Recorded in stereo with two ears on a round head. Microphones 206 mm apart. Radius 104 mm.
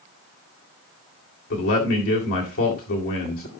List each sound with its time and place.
1.5 s a man speaking: 65° left (ahead or behind), 2.5 m